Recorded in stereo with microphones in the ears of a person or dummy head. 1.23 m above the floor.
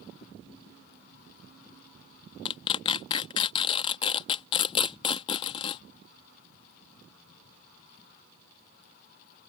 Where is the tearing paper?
30° left (ahead or behind).